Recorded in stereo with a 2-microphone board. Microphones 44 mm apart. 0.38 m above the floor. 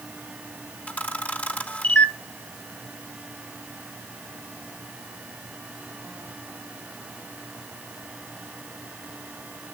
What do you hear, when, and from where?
0.9 s a camera shutter: 30° left (ahead or behind), 1.3 m